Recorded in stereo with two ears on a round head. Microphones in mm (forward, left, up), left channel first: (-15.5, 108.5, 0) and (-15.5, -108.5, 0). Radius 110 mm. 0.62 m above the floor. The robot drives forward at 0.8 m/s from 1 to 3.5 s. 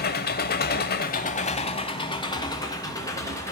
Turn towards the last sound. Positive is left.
turn(degrees=15)  # may be behind; listen again after turning